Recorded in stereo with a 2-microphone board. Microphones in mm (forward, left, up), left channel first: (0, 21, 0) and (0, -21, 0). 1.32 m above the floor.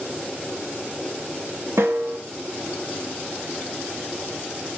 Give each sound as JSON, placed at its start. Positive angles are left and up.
{"t": 1.8, "sound": "a snare drum", "side_deg": -85, "distance_m": 1.7}